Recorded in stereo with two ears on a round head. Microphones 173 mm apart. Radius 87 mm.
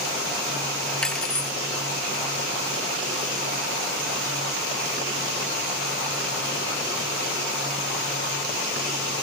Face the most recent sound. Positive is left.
turn(degrees=5)  # may be behind; listen again after turning